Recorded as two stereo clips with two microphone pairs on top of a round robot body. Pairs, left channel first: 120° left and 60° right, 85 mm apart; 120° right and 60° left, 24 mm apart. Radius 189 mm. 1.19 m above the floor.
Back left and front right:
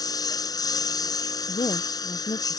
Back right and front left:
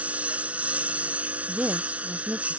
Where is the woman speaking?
95° left.